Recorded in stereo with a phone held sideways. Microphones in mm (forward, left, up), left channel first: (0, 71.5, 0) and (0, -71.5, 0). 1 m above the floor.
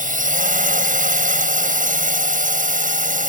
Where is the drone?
70° right (ahead or behind).